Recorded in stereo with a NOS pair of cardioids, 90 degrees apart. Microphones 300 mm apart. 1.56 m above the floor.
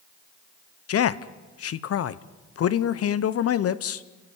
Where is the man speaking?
50° left, 0.9 m.